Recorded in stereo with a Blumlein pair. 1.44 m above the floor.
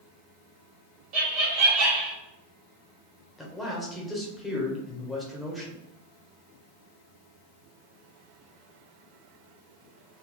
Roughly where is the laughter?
Ahead right.